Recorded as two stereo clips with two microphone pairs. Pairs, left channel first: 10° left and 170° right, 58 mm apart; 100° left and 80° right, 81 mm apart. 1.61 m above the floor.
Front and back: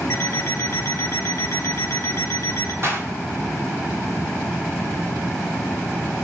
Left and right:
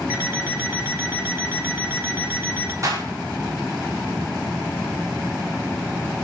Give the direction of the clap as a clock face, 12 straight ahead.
4 o'clock.